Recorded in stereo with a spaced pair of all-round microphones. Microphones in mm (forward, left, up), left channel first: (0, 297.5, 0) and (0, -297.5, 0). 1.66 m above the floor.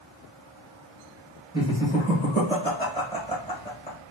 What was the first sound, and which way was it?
Laughter, 15° left (ahead or behind).